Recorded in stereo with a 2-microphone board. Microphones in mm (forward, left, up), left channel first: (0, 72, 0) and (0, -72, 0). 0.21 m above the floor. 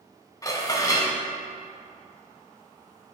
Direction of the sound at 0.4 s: 25° left (ahead or behind).